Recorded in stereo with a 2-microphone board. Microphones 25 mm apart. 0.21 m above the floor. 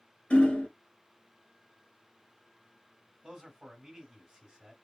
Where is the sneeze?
No sneeze in this recording.